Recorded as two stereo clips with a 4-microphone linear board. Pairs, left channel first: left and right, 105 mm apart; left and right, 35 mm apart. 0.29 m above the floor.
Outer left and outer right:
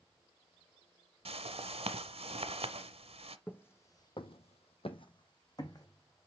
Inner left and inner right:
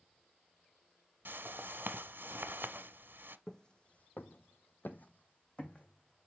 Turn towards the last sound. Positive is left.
turn(degrees=30)  # may be behind; listen again after turning